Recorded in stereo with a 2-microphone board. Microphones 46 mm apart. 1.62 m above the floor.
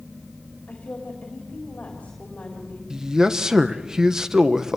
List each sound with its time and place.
0.7 s a woman speaking: 30° left (ahead or behind), 4 m
2.9 s a man speaking: 15° right (ahead or behind), 1.1 m